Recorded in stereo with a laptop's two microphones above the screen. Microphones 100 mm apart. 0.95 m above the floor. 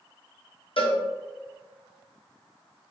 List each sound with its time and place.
0.8 s a cowbell: 60° left (ahead or behind), 0.7 m